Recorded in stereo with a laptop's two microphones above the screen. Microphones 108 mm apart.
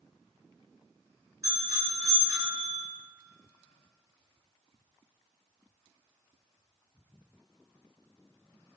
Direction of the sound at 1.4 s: 30° right (ahead or behind).